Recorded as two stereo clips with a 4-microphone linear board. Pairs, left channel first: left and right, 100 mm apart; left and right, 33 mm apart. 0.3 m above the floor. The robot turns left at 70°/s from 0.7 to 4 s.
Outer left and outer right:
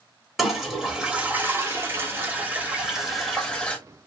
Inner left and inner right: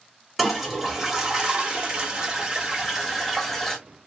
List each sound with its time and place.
0.4 s a toilet flushing: centre (ahead or behind), 1.0 m; by 3.8 s 15° left (ahead or behind), 1.0 m